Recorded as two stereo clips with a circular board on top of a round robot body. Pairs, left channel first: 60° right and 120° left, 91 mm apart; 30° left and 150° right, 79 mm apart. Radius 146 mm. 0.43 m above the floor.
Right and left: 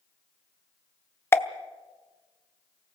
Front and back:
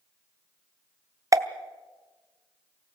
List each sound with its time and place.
1.3 s a pop: 115° right, 1.1 m